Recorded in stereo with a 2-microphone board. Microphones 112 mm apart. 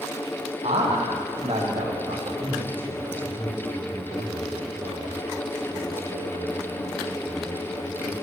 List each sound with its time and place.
0.6 s a man speaking: 70° right (ahead or behind), 6.5 m
2.4 s a man speaking: 50° right (ahead or behind), 8 m